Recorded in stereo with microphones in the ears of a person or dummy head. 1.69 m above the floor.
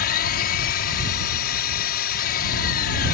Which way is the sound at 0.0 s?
55° left (ahead or behind).